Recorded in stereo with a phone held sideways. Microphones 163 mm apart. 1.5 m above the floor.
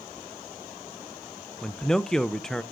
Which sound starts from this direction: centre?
A man speaking, at 1.6 s.